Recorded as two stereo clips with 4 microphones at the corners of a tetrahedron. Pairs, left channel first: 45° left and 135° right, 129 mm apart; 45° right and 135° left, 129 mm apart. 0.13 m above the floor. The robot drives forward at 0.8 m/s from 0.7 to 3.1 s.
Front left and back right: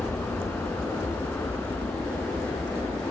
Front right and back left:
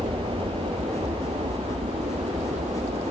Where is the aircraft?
120° left.